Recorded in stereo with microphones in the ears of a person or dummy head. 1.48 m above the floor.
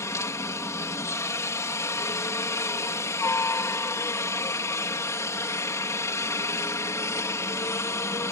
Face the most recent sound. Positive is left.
turn(degrees=10)  # may be behind; listen again after turning